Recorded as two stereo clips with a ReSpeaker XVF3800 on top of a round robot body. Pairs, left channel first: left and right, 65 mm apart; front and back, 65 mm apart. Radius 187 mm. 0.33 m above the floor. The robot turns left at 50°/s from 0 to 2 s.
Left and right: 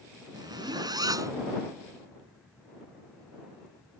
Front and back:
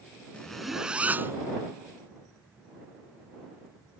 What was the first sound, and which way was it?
A zipper, 75° right.